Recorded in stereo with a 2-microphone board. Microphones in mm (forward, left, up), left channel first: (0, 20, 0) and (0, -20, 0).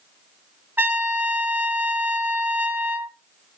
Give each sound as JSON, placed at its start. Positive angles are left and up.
{"t": 0.8, "sound": "a trumpet", "side_deg": -55, "distance_m": 0.6}